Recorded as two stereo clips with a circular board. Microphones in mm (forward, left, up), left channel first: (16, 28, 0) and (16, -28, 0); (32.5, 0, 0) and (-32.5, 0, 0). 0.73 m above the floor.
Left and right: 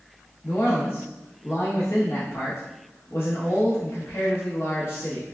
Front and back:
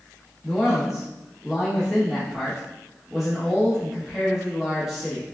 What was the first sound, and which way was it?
A man speaking, 90° left.